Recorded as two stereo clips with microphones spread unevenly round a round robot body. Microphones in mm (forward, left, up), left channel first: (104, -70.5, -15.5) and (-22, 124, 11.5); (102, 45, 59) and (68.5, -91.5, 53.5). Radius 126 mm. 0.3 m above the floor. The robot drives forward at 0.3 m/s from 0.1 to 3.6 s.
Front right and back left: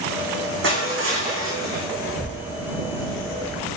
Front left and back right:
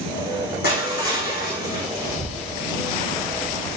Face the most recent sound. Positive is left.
turn(degrees=-145)